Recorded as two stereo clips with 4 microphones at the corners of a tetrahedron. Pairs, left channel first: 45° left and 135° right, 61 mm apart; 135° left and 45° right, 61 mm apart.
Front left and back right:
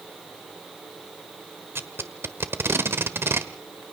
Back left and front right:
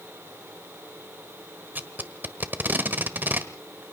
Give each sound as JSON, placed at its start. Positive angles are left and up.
{"t": 1.8, "sound": "tape being pulled", "azimuth_deg": -95, "distance_m": 1.3}